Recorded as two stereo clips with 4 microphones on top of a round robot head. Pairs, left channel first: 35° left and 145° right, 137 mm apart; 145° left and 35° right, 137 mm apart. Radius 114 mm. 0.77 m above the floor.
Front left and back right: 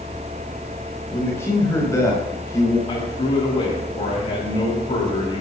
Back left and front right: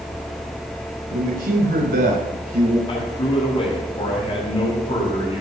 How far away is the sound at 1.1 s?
About 5 m.